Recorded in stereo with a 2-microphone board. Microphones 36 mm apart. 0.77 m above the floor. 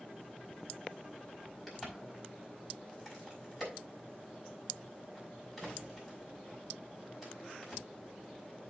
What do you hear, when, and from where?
1.7 s a crack: 5° right (ahead or behind), 5 m